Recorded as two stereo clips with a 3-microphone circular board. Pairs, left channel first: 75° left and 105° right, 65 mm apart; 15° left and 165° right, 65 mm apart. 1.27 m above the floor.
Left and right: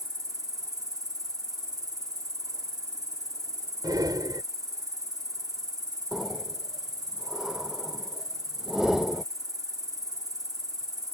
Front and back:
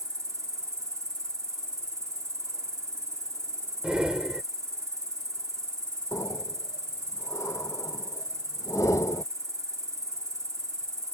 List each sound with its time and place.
0.0 s an insect: 130° right
3.8 s breathing: 90° right
6.1 s breathing: 20° right